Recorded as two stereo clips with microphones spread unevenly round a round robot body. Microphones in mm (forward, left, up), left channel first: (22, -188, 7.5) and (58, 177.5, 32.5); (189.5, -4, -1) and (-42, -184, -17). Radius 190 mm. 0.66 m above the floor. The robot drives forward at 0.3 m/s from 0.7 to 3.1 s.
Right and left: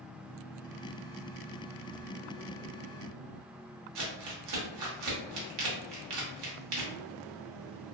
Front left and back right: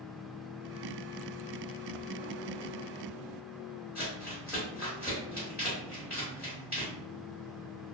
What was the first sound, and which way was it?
Crumpling, 130° left.